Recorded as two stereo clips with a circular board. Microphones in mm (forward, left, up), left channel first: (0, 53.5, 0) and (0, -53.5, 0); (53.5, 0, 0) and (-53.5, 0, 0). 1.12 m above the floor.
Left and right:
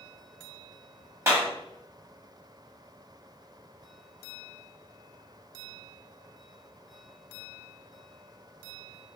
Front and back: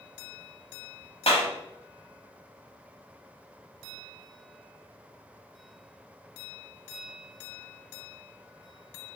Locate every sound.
1.3 s a clap: 25° right, 1.3 m